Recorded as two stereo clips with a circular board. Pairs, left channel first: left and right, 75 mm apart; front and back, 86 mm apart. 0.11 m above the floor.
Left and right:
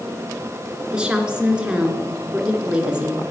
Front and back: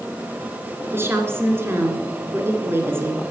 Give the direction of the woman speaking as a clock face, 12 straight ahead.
5 o'clock.